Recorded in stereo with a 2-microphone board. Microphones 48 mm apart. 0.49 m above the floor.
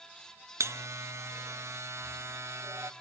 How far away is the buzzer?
About 0.8 m.